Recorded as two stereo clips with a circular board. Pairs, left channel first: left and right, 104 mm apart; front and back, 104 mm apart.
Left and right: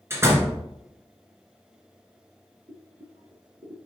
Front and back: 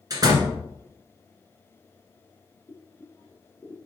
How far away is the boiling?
About 2.5 m.